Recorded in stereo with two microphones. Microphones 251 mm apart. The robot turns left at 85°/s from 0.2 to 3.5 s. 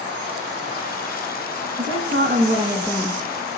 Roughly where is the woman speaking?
Right.